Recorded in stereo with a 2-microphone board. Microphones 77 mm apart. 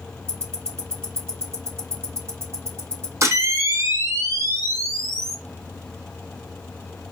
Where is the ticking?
35° right (ahead or behind), 1.9 m.